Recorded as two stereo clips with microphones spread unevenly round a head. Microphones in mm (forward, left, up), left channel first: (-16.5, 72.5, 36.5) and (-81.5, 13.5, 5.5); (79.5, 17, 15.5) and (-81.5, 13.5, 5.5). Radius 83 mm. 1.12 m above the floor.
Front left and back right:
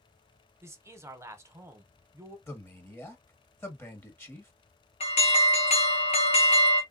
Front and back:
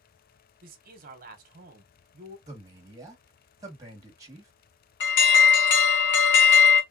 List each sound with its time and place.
0.6 s a man speaking: 170° right, 1.1 m
2.5 s a man speaking: 115° left, 1.6 m
5.0 s an alarm: 5° right, 0.9 m